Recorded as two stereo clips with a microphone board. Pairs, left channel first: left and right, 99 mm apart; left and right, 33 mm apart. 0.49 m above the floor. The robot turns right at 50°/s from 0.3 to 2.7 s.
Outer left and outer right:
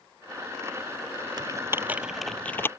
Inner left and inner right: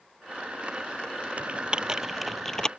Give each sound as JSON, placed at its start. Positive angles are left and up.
{"t": 1.4, "sound": "typing on a keyboard", "side_deg": -45}